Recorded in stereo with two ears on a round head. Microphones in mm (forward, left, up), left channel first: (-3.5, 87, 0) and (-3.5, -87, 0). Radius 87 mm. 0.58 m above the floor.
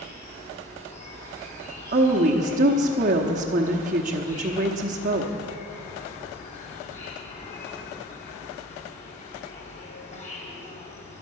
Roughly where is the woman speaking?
Right.